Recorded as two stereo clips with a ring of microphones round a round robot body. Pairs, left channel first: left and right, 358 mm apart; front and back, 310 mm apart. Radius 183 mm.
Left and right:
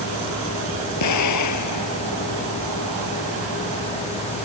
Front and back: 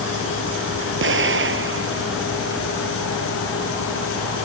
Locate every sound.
1.0 s an explosion: 130° left